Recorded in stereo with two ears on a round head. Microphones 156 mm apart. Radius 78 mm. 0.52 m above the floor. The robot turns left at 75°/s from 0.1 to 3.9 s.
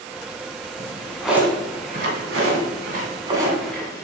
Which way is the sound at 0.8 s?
35° left (ahead or behind).